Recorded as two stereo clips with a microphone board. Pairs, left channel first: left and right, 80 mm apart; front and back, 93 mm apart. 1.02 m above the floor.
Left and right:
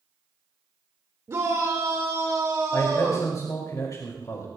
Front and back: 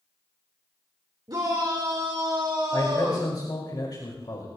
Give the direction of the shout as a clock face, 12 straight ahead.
5 o'clock.